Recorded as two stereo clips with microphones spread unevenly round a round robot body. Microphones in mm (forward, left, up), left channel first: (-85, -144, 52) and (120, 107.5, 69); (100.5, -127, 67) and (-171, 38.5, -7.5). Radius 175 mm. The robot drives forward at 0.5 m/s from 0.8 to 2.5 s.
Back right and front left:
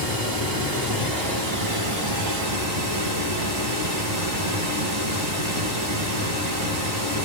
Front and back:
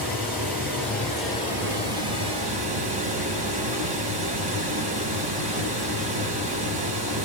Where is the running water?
60° left, 1.9 m; by 7.2 s 90° left, 1.7 m.